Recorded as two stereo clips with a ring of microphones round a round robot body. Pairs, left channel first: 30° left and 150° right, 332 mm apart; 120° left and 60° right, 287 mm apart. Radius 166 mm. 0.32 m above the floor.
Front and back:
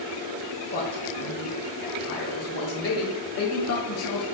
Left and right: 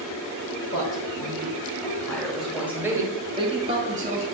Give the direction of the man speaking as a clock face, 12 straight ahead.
9 o'clock.